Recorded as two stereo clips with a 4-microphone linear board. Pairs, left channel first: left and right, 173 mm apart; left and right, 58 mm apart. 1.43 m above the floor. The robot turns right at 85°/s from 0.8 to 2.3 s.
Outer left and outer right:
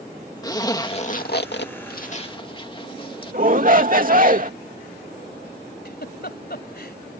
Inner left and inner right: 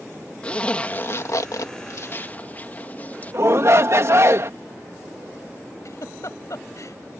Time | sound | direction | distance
0.4 | a zipper | 20° left (ahead or behind) | ?
3.3 | a shout | 55° right (ahead or behind) | ?
5.8 | a giggle | 65° left (ahead or behind) | ?